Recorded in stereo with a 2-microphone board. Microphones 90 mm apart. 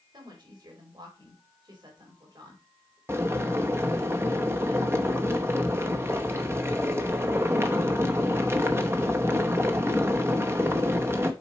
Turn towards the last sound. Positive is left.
turn(degrees=-25)  # may be behind; listen again after turning